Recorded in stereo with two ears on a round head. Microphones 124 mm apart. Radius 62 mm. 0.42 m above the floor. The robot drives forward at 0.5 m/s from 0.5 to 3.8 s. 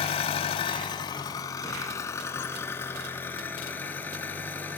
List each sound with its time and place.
0.0 s an engine running: 40° left (ahead or behind), 0.8 m; by 4.8 s 15° left (ahead or behind), 2.5 m